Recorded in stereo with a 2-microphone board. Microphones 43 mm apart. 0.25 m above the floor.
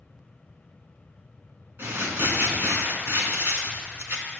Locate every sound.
1.8 s crumpling: 60° right (ahead or behind), 2.5 m